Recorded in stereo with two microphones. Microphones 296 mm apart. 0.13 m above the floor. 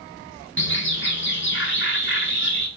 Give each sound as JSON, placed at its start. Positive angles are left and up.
{"t": 0.6, "sound": "a bird", "side_deg": 40, "distance_m": 0.9}